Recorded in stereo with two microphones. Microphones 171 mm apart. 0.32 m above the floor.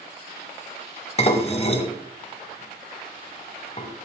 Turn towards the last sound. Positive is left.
turn(degrees=35)  # may be behind; listen again after turning